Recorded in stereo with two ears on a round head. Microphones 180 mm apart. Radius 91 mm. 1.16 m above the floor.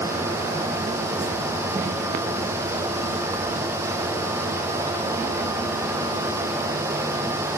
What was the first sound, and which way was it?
Only background noise.